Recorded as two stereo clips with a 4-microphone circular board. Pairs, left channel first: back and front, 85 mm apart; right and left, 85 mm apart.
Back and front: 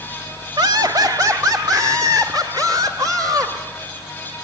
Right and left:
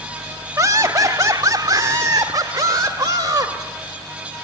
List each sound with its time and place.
0.6 s laughter: 40° left, 1.2 m; by 3.5 s 45° left, 3.5 m